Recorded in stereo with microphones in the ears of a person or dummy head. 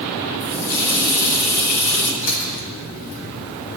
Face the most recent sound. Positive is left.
turn(degrees=70)  # may be behind; listen again after turning